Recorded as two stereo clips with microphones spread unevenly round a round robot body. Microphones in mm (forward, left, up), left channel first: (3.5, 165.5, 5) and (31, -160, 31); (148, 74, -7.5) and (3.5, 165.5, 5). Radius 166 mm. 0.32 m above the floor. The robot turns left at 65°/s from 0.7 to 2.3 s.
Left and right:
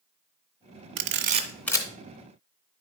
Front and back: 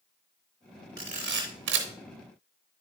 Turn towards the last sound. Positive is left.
turn(degrees=140)